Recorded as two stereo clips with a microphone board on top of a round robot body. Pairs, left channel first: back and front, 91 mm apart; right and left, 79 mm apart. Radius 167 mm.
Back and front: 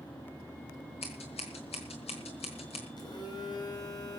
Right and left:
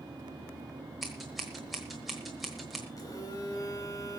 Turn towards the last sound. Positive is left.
turn(degrees=-135)